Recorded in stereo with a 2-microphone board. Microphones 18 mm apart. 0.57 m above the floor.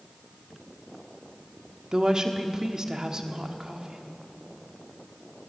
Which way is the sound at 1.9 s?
40° right (ahead or behind).